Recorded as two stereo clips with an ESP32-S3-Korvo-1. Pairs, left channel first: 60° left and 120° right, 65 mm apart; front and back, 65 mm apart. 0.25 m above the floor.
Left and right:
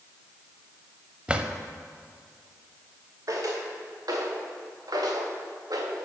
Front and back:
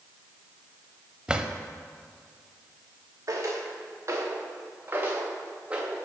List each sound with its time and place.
1.3 s a drawer: 140° right, 0.5 m
3.3 s footsteps: 150° right, 2.5 m; by 6.0 s 105° right, 1.8 m